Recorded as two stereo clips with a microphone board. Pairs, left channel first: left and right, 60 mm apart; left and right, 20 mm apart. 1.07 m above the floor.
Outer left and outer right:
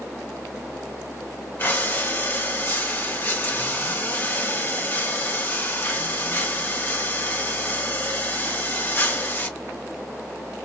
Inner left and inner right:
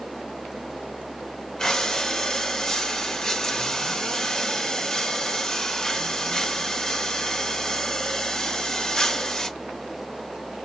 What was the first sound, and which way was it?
Breathing, 35° left (ahead or behind).